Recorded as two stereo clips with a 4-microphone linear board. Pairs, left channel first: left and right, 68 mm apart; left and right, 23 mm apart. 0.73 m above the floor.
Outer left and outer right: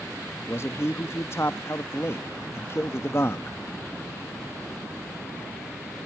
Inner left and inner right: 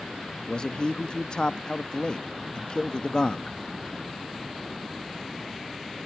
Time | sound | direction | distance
0.5 | a man speaking | 40° left (ahead or behind) | 0.6 m